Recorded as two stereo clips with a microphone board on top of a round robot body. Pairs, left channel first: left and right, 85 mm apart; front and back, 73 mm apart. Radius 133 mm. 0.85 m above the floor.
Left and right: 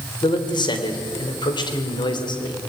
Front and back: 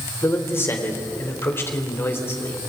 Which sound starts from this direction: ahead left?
A man speaking, at 0.2 s.